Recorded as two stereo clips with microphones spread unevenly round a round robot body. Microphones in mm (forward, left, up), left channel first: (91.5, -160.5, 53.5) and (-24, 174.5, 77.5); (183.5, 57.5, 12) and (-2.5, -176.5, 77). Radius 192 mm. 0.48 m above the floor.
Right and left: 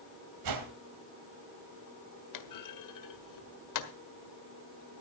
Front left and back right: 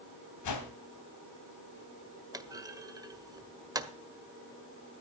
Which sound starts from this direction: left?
A whoosh, at 0.4 s.